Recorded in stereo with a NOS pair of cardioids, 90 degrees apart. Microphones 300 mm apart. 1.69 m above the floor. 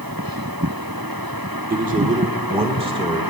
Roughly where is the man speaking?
Ahead right.